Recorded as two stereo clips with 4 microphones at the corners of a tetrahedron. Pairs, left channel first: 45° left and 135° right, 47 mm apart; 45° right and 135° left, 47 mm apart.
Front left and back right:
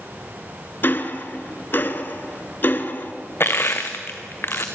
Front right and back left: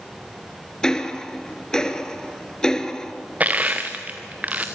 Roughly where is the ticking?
Ahead left.